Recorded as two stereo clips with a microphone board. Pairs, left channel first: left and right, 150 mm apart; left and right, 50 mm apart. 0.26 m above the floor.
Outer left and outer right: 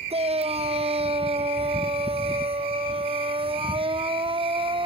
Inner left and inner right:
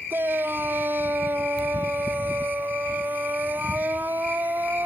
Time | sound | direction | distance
0.1 | a shout | 40° right (ahead or behind) | ?